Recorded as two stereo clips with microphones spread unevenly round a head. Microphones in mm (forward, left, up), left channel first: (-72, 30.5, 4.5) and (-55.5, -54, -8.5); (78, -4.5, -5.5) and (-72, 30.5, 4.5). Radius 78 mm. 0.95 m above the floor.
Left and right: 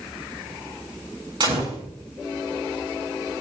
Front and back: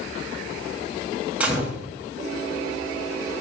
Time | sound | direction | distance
1.4 | a gunshot | 110° right | 6 m